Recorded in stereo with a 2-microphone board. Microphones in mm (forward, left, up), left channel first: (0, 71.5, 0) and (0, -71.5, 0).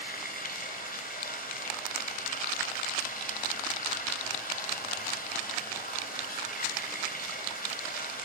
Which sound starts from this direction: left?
Running water, at 0.0 s.